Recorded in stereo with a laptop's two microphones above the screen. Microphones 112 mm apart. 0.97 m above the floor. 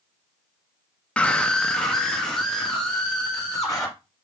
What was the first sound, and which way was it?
A scream, 10° left (ahead or behind).